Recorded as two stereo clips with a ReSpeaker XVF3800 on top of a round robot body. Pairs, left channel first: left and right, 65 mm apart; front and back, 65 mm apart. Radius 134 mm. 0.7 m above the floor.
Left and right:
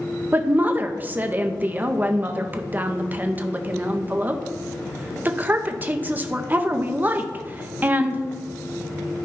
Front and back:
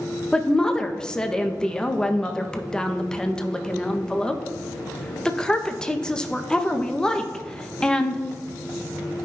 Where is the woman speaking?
65° right, 0.7 m.